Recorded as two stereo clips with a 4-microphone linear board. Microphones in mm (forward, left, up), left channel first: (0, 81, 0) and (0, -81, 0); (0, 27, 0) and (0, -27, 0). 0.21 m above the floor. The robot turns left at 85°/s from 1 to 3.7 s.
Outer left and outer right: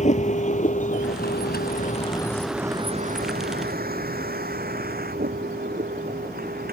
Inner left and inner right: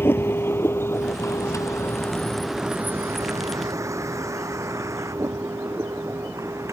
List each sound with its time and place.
0.0 s a vehicle: 50° left (ahead or behind); by 6.7 s 70° right (ahead or behind)